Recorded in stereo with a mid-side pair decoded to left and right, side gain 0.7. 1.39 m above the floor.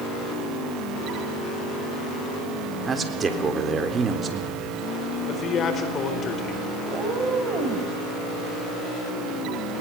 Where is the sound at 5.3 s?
40° left, 4 m.